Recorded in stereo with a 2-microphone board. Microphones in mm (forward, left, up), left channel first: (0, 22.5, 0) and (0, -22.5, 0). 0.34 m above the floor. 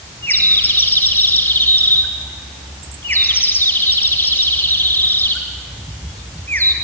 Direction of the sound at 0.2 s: 55° left (ahead or behind).